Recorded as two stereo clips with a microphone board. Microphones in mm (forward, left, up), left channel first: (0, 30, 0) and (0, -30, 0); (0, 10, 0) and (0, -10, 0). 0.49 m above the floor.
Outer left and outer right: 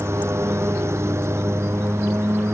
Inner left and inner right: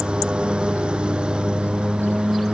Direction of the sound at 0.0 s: 50° right (ahead or behind).